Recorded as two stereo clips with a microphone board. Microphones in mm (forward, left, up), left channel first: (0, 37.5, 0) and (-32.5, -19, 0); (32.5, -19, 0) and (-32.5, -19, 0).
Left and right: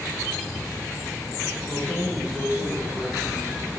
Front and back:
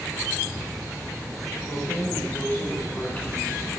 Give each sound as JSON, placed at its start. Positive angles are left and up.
{"t": 1.7, "sound": "keys jangling", "azimuth_deg": -45, "distance_m": 2.5}